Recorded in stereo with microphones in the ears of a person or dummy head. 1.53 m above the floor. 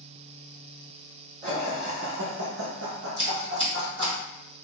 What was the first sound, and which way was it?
Laughter, 25° right (ahead or behind).